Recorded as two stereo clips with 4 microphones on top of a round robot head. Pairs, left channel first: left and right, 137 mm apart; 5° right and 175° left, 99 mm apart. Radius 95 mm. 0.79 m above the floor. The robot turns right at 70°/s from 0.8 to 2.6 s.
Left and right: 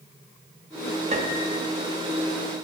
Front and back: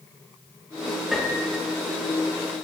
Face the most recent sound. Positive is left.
turn(degrees=5)